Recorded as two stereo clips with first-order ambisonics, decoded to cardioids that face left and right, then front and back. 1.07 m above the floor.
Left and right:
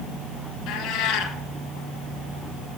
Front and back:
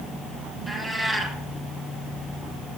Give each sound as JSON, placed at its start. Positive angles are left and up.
{"t": 0.7, "sound": "a cat meowing", "azimuth_deg": 90, "distance_m": 1.6}